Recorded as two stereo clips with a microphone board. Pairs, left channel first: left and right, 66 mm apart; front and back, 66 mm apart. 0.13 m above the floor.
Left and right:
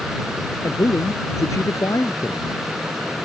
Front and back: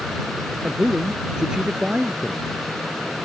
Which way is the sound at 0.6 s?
105° left.